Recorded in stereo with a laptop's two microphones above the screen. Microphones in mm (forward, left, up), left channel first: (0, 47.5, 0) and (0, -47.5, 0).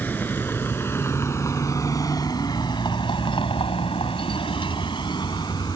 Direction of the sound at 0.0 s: 20° left (ahead or behind).